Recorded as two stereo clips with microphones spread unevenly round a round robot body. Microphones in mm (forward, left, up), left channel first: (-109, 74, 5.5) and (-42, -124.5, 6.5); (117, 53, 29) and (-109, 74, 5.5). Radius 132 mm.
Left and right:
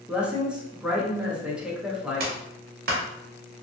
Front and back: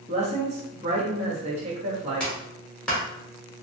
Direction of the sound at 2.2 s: 95° right.